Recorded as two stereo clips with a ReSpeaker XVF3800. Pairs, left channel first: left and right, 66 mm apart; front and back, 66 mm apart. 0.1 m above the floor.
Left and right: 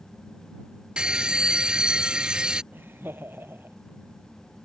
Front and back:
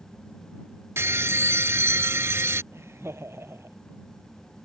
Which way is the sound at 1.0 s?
160° right.